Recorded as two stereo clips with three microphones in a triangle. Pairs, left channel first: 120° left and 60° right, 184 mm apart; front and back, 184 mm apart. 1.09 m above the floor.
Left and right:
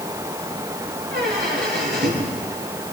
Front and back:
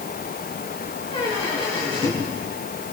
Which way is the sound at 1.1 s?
55° right.